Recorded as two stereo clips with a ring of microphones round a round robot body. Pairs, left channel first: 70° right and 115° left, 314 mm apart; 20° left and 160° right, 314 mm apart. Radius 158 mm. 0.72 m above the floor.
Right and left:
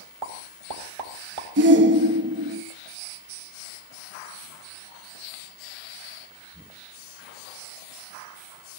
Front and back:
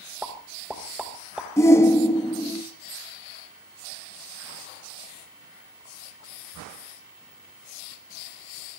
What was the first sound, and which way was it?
A pop, 115° left.